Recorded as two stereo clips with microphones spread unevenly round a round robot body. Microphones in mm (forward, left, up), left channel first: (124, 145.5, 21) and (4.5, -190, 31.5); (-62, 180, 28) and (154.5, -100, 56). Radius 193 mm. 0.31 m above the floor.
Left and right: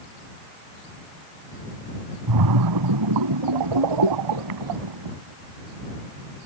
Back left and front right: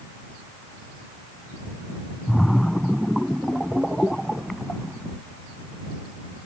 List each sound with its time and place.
2.3 s a splash: 145° right